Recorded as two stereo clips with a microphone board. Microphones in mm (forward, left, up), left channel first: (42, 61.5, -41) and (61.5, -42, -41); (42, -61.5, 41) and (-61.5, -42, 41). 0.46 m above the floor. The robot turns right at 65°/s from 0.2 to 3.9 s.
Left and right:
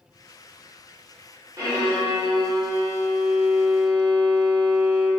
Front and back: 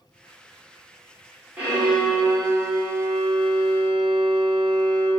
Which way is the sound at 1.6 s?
120° right.